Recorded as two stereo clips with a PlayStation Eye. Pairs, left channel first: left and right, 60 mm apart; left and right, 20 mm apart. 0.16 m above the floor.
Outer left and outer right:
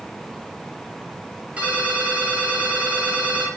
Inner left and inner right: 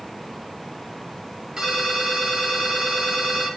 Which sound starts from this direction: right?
A ringtone, at 1.6 s.